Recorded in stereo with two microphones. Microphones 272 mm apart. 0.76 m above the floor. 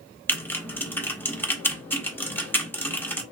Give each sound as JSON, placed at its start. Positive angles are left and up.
{"t": 0.3, "sound": "typing on a keyboard", "side_deg": 10, "distance_m": 0.9}